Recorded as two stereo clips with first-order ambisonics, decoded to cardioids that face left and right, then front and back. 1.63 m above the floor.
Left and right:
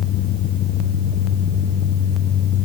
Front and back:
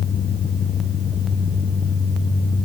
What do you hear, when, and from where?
Only background noise.